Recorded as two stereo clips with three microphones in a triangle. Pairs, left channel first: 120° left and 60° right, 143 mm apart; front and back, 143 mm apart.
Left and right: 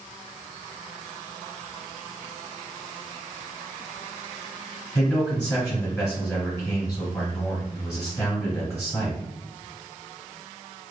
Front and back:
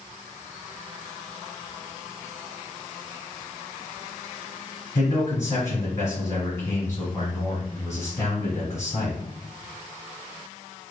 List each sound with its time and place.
5.0 s a man speaking: 50° left, 1.4 m